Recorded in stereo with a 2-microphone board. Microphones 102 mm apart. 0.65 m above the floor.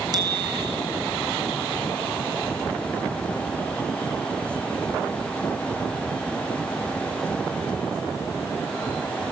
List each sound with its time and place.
0.1 s a bicycle bell: 40° right (ahead or behind), 2.5 m